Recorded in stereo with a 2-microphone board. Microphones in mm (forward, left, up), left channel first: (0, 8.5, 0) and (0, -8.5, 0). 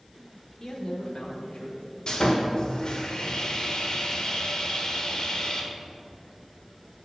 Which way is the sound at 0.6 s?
40° left (ahead or behind).